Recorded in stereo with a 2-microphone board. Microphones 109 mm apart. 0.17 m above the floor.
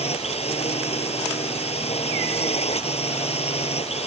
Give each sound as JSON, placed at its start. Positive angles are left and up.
{"t": 0.0, "sound": "a drone", "side_deg": 70}